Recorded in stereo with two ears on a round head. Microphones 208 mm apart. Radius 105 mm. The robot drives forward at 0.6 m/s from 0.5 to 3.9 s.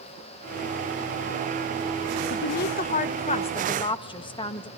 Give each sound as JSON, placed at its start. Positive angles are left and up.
{"t": 2.3, "sound": "a woman speaking", "side_deg": 45, "distance_m": 0.6}